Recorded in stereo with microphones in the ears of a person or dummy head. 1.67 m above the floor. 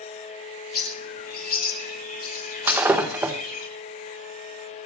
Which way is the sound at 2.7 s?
10° right (ahead or behind).